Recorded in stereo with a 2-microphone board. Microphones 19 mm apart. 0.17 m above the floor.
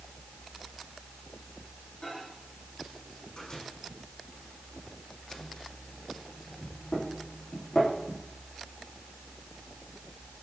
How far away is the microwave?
About 6.5 m.